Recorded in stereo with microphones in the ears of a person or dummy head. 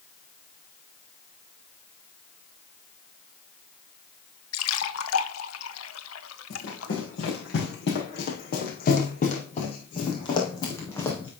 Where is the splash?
75° left (ahead or behind), 1.2 m.